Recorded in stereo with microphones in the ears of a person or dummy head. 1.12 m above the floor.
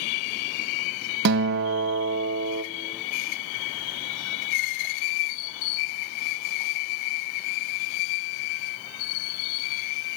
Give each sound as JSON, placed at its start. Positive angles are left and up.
{"t": 1.2, "sound": "a guitar", "side_deg": -55, "distance_m": 1.2}